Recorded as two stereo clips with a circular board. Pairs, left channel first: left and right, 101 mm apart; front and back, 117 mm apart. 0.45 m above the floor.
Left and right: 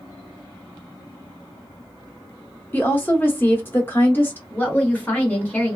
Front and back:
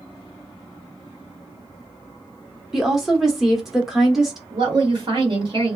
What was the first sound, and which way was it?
A woman speaking, 100° left.